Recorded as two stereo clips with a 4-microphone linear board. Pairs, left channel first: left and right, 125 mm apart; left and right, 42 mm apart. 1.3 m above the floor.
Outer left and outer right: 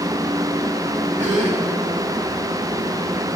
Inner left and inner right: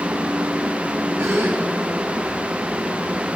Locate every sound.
1.2 s a gasp: 75° right (ahead or behind), 2.0 m